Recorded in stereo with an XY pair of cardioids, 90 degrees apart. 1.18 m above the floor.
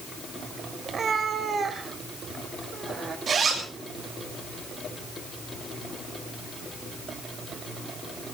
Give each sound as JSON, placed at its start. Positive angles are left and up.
{"t": 0.8, "sound": "a cat meowing", "azimuth_deg": -50, "distance_m": 2.5}
{"t": 3.3, "sound": "a zipper", "azimuth_deg": -55, "distance_m": 7.0}